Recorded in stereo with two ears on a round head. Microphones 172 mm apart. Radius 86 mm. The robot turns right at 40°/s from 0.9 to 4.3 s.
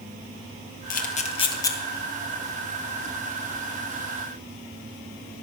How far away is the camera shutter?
About 1.7 m.